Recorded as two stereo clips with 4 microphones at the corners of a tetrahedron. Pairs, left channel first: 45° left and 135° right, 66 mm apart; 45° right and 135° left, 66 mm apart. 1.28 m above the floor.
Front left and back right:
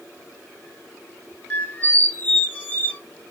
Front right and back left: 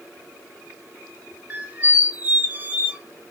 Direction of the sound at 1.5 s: 90° left.